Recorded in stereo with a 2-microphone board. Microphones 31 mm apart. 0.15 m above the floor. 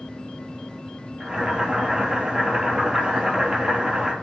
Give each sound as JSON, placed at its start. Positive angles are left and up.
{"t": 1.2, "sound": "boiling", "side_deg": -25, "distance_m": 3.0}